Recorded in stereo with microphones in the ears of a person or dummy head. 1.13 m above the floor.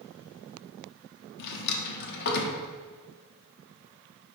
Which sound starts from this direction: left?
A drawer, at 1.4 s.